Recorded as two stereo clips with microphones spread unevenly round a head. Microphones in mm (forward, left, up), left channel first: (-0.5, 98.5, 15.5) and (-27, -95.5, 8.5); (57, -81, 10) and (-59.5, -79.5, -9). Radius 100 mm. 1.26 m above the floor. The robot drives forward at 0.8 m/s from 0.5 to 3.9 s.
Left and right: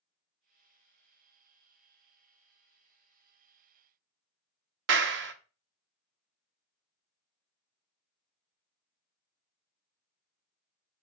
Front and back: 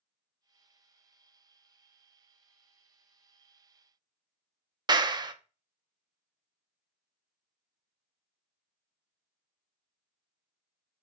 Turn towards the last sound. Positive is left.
turn(degrees=-125)